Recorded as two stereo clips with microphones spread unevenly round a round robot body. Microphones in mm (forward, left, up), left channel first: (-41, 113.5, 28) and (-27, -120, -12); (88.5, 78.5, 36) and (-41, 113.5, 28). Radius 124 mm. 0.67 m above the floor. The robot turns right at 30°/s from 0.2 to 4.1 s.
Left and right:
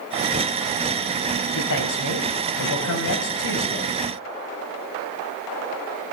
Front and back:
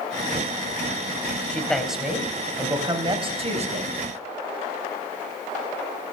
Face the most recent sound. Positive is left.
turn(degrees=145)